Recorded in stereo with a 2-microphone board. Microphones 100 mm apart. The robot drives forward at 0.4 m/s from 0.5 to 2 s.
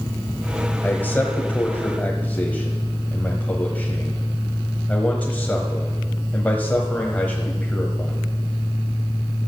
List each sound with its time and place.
0.8 s a man speaking: 15° left (ahead or behind), 1.0 m